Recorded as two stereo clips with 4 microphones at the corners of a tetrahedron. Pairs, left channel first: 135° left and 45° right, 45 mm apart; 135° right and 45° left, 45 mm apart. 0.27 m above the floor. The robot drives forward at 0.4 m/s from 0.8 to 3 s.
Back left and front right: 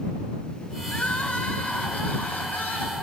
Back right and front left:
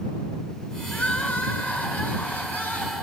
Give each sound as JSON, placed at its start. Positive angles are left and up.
{"t": 0.9, "sound": "crying", "azimuth_deg": -175, "distance_m": 0.5}